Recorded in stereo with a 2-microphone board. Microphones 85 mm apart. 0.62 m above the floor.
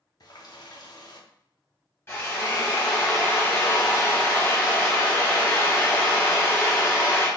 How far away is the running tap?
About 0.6 m.